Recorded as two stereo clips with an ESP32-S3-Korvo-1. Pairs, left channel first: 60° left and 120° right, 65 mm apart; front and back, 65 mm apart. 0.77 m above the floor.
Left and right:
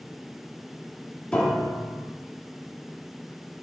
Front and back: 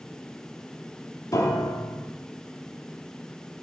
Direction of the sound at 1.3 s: 10° right.